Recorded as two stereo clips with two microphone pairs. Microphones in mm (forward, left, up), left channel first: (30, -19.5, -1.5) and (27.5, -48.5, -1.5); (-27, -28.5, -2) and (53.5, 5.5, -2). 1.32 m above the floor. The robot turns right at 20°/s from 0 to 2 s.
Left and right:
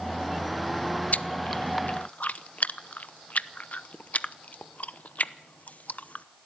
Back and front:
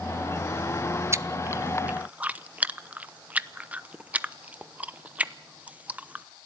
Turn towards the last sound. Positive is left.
turn(degrees=95)